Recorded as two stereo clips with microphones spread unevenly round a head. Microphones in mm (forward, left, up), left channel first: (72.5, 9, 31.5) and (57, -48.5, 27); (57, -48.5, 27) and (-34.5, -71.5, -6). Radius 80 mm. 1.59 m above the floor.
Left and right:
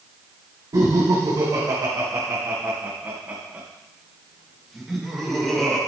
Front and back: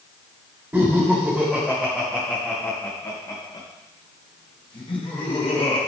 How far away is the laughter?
About 3 m.